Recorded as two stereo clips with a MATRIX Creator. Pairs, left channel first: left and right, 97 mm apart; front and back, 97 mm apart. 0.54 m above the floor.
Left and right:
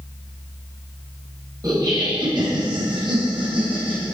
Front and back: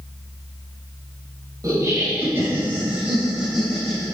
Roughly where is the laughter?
Behind right.